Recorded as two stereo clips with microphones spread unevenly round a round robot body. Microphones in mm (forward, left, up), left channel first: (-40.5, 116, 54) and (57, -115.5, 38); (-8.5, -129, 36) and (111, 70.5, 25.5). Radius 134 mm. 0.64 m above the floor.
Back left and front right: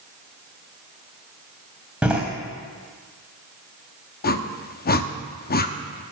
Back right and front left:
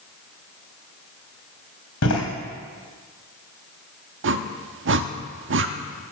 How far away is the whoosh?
About 0.9 m.